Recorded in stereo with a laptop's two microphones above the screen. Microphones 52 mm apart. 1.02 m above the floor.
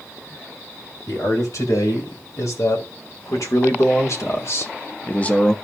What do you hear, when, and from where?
1.1 s a man speaking: 80° left, 3.5 m; by 5.5 s 10° left (ahead or behind), 0.7 m